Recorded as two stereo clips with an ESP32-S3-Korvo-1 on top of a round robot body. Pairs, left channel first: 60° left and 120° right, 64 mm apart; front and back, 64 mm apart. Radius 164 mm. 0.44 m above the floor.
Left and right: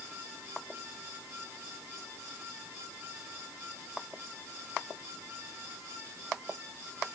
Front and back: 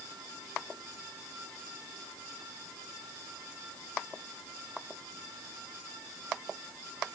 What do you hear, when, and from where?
Only background noise.